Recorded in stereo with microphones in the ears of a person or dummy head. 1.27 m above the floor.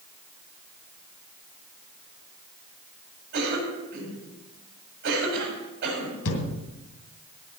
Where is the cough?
55° right (ahead or behind), 8.5 m.